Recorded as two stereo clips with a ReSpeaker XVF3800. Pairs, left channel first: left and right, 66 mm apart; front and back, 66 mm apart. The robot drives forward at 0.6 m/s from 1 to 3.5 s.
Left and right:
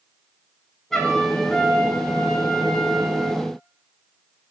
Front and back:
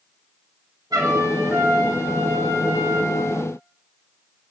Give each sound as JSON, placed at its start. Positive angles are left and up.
{"t": 0.9, "sound": "a trumpet", "azimuth_deg": 175, "distance_m": 2.5}